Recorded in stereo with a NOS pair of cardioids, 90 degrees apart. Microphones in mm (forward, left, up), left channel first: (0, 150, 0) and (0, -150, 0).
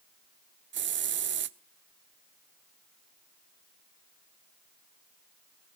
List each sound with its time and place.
0.7 s a hiss: 40° right, 0.6 m